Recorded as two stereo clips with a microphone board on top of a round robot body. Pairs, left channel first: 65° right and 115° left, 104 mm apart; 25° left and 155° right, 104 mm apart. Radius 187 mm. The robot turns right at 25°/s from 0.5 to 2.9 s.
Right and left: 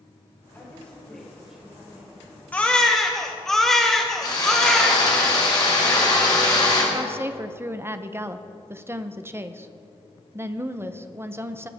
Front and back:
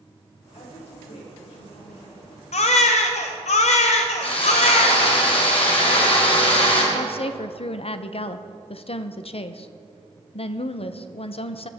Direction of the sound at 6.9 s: 45° left.